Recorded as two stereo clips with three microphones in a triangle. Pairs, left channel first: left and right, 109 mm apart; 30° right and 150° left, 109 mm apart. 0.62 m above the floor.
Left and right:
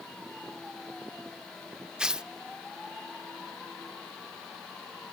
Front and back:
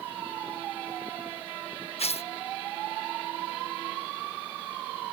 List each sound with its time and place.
2.0 s tearing paper: 5° right